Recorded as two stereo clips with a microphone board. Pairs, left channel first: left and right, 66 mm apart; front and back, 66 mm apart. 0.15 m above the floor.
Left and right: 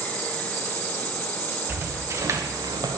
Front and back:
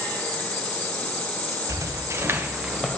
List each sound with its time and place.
1.7 s footsteps: 145° right, 1.5 m; by 3.0 s 80° right, 0.8 m